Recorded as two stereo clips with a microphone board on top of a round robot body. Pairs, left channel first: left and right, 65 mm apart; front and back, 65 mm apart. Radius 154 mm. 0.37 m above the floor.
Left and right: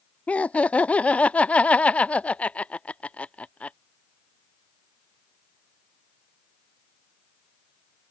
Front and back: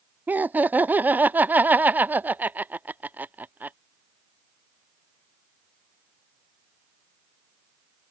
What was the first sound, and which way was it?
Laughter, 145° left.